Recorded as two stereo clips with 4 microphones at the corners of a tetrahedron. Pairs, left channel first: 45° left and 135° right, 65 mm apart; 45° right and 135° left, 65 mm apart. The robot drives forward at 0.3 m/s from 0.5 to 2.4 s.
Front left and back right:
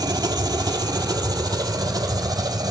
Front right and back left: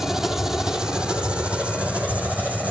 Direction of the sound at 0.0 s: 140° right.